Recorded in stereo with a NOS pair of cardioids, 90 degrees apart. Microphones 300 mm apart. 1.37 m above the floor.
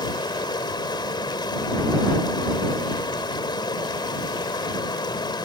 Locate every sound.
0.0 s running water: 15° left